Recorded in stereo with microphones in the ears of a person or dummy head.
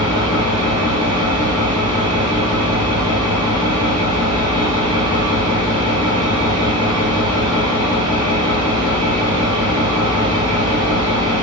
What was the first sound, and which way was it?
An engine running, 30° right (ahead or behind).